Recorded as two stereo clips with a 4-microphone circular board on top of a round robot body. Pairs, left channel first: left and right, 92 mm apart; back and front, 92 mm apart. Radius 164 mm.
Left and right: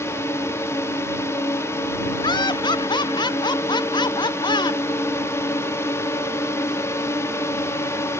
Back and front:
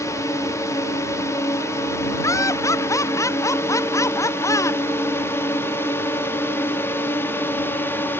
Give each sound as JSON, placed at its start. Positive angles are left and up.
{"t": 0.0, "sound": "a drone", "azimuth_deg": 140}
{"t": 2.2, "sound": "laughter", "azimuth_deg": 125}